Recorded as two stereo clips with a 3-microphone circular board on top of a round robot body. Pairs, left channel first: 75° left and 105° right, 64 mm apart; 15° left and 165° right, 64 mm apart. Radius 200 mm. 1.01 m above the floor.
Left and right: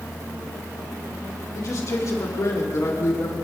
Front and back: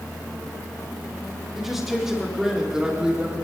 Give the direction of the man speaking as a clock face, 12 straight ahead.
8 o'clock.